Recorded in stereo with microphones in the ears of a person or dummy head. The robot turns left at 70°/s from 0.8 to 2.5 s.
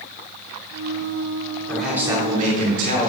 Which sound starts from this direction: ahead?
A man speaking, at 1.7 s.